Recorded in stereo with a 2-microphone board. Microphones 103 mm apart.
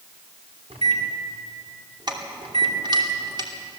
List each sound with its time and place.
0.7 s a microwave: 75° right (ahead or behind), 3.5 m
2.1 s keys jangling: 45° right (ahead or behind), 2.5 m